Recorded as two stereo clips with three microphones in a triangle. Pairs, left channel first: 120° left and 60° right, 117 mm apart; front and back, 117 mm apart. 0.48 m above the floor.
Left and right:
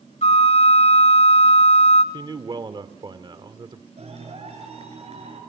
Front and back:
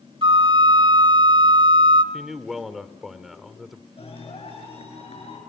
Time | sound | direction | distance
0.2 | a flute | 140° left | 1.1 m
2.1 | a man speaking | 95° right | 1.1 m
4.0 | a clap | 30° right | 7 m